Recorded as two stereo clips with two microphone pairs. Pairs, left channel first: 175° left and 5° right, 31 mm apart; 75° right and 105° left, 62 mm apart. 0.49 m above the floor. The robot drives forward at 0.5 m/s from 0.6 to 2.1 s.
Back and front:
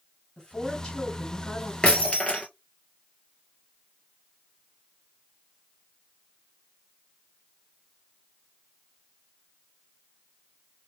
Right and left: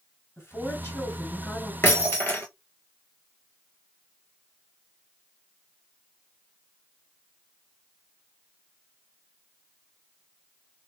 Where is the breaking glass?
130° right, 2 m.